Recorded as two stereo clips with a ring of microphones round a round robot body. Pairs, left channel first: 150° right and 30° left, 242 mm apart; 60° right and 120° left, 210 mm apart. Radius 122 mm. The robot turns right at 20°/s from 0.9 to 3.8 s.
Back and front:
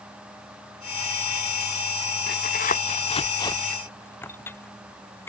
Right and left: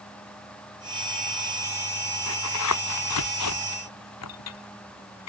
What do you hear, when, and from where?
2.3 s tearing paper: 100° right; by 5.3 s 70° right